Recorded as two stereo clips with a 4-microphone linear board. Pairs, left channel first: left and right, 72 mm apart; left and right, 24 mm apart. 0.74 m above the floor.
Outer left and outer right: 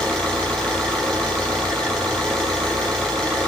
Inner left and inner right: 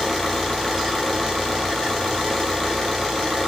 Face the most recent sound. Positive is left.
turn(degrees=10)  # may be behind; listen again after turning